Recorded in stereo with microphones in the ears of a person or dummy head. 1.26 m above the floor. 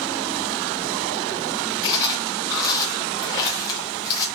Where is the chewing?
25° left (ahead or behind), 0.8 m.